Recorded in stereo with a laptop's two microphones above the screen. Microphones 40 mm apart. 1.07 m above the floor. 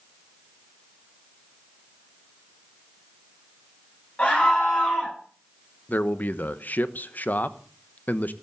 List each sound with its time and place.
4.2 s a scream: 30° left (ahead or behind), 9.5 m
5.9 s a man speaking: 45° left (ahead or behind), 1.0 m